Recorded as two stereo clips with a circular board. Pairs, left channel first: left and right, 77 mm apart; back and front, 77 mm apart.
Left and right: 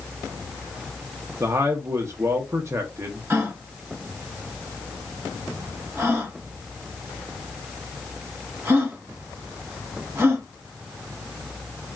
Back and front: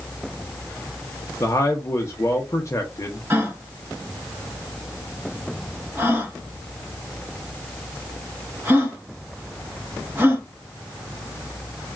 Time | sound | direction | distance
1.4 | a man speaking | 135° right | 0.6 m
3.3 | a gasp | 55° right | 1.0 m